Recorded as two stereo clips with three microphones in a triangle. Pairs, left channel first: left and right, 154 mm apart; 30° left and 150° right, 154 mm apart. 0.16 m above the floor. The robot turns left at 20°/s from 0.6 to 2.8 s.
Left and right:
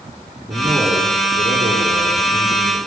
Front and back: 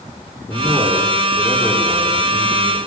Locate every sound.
0.5 s a man speaking: 45° right, 9 m; by 2.8 s 85° right, 9 m